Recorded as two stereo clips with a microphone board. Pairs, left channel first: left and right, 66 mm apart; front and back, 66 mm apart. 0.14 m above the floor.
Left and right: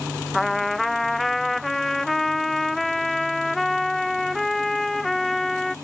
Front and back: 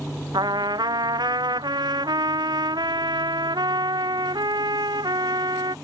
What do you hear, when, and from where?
0.3 s a trumpet: straight behind